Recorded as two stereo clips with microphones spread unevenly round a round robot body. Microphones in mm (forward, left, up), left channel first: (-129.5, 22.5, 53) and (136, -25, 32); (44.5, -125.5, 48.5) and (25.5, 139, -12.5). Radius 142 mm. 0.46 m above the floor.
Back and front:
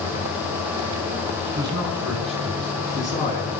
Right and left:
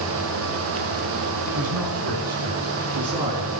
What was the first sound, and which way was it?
A man speaking, 65° left.